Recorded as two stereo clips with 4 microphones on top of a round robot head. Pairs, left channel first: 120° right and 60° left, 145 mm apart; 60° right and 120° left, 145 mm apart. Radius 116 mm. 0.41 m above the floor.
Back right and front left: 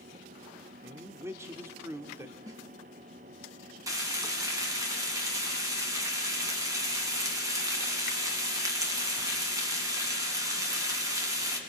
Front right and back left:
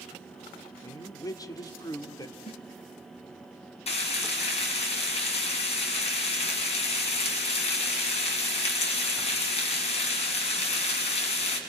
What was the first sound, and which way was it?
A man speaking, 5° right.